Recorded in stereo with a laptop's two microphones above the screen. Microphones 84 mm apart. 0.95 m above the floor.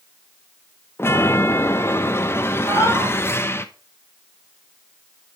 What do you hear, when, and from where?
1.0 s a chime: 30° left (ahead or behind), 0.9 m
2.6 s a cat meowing: 55° left (ahead or behind), 5.5 m